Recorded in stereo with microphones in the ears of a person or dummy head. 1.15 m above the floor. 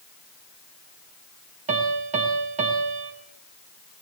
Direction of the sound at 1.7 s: 30° right (ahead or behind).